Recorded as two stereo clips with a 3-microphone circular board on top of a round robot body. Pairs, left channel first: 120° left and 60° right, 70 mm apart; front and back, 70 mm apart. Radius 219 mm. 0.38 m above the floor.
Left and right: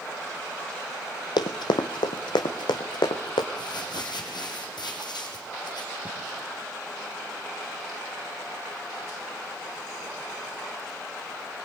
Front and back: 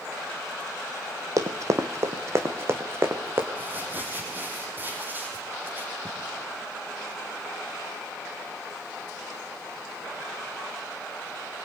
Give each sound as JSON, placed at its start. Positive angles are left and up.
{"t": 1.4, "sound": "running footsteps", "azimuth_deg": 135, "distance_m": 0.8}
{"t": 3.5, "sound": "crumpling", "azimuth_deg": 115, "distance_m": 4.0}